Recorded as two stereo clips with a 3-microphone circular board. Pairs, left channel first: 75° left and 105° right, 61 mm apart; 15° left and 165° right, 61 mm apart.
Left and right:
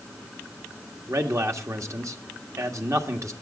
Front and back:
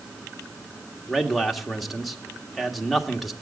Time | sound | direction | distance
1.1 | a man speaking | 75° right | 1.6 m